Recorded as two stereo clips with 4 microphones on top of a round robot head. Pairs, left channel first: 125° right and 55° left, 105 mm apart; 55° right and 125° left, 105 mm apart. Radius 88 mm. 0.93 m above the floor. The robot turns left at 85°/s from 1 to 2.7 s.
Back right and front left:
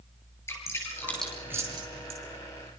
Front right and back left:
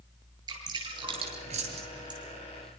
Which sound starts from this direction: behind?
Dripping, at 0.5 s.